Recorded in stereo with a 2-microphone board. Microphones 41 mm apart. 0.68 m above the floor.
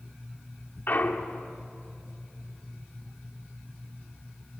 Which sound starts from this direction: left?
A clunk, at 0.9 s.